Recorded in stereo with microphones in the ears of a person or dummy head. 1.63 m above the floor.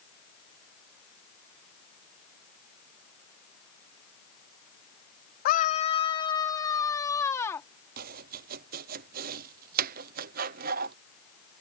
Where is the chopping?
45° right (ahead or behind).